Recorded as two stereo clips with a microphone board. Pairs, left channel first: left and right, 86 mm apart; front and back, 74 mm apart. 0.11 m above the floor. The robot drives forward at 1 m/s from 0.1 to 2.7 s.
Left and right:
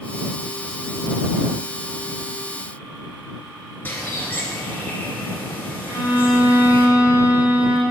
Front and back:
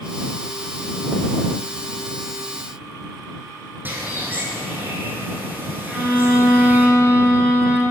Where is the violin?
120° right, 1.9 m.